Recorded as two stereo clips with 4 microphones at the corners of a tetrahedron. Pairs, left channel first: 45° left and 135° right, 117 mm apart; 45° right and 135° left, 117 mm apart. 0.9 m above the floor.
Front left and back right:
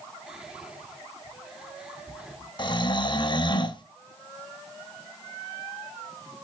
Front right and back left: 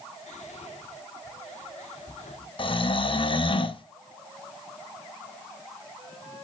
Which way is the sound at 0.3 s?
50° right.